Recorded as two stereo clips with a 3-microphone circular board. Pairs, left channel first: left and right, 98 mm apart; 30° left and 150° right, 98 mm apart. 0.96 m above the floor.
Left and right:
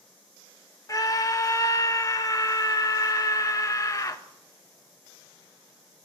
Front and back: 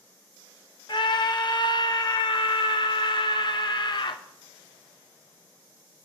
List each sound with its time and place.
0.9 s a scream: 45° left, 0.9 m